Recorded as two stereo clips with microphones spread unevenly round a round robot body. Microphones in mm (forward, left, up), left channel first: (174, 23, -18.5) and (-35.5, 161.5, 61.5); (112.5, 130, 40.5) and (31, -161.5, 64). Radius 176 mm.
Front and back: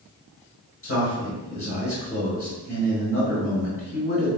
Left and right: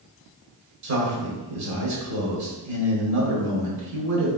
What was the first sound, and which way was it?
A man speaking, 80° right.